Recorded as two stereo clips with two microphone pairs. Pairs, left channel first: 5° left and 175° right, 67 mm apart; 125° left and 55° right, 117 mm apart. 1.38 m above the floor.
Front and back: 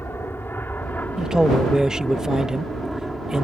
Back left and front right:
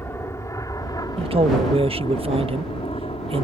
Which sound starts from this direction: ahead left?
An aircraft, at 0.0 s.